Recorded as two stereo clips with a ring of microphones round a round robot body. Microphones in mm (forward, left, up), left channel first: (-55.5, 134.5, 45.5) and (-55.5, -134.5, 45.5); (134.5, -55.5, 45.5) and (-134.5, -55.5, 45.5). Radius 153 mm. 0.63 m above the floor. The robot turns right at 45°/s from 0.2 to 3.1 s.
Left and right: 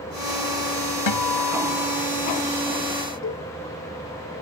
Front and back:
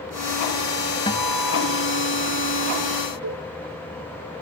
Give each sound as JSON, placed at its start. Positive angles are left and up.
{"t": 1.1, "sound": "a guitar", "azimuth_deg": 75}
{"t": 3.2, "sound": "a cowbell", "azimuth_deg": 135}